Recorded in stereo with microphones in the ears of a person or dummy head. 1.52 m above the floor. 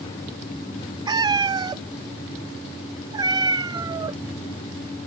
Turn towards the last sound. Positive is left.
turn(degrees=-15)  # may be behind; listen again after turning